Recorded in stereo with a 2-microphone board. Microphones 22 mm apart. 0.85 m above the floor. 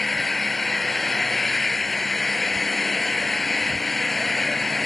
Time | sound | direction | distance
0.0 | an engine running | 10° left (ahead or behind) | ?